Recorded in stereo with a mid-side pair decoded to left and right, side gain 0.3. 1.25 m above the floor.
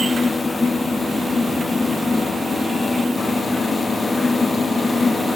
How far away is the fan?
About 1.0 m.